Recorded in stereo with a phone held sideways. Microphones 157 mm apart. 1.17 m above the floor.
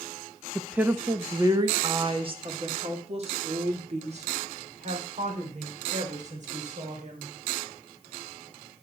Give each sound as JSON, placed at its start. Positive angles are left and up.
{"t": 0.6, "sound": "a woman speaking", "side_deg": -5, "distance_m": 0.9}